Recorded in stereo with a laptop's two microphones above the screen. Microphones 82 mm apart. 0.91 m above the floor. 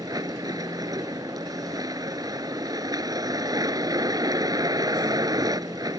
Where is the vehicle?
50° right (ahead or behind).